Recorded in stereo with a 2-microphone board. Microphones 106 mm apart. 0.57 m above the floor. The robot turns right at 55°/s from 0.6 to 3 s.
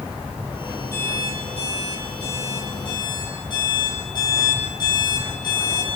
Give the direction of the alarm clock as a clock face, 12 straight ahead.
11 o'clock.